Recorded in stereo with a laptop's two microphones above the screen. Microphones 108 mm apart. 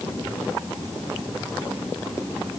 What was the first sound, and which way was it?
Only background noise.